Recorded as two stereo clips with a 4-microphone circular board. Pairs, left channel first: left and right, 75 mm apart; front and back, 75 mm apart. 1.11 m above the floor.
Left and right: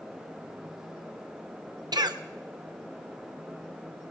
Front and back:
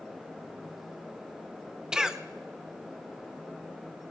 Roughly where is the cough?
Right.